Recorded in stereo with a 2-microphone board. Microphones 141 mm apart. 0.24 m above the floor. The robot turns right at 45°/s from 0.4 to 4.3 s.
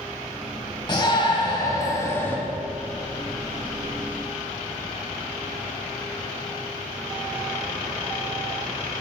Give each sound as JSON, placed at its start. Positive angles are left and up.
{"t": 0.9, "sound": "a shout", "azimuth_deg": 90, "distance_m": 1.5}